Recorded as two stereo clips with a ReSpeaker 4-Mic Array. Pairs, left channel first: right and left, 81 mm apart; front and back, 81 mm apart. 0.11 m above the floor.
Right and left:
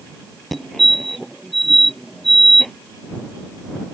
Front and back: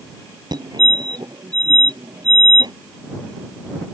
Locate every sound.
0.5 s a fire alarm: 175° right